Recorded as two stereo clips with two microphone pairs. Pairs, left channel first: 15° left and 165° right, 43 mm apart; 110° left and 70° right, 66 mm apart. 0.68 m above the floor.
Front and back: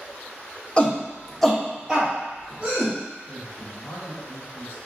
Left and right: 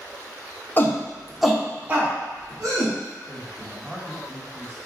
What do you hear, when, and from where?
0.8 s a shout: 75° left, 0.6 m; by 2.9 s 105° right, 1.1 m
3.3 s a man speaking: 5° left, 1.3 m